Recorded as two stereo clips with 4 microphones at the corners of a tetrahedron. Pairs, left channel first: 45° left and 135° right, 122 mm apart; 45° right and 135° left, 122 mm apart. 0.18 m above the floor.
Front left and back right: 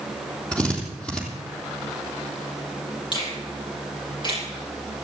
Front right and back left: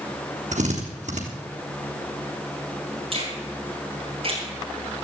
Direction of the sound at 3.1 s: 95° left.